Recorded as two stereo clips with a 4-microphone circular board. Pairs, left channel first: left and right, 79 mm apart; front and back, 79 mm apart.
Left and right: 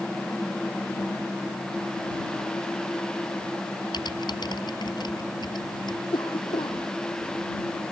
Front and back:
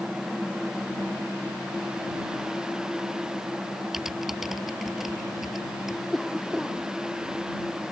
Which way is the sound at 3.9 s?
95° left.